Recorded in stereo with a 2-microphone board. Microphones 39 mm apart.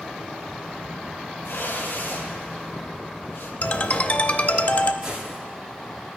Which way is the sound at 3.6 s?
40° left (ahead or behind).